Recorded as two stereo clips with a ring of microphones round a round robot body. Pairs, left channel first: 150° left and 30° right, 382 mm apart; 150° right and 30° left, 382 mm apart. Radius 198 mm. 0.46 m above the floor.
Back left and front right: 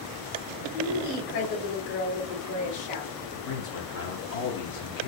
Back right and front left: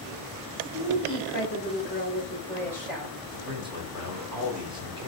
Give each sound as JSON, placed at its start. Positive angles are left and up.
{"t": 0.7, "sound": "a woman speaking", "azimuth_deg": 165, "distance_m": 1.7}
{"t": 3.3, "sound": "a man speaking", "azimuth_deg": 105, "distance_m": 1.2}